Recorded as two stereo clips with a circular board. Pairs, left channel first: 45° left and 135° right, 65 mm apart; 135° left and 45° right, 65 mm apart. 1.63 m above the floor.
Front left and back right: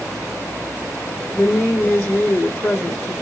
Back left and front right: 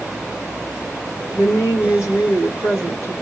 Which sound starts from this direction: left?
A woman speaking, at 1.3 s.